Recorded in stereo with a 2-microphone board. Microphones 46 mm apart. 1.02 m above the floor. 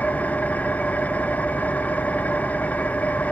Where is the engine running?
40° left (ahead or behind), 0.8 m.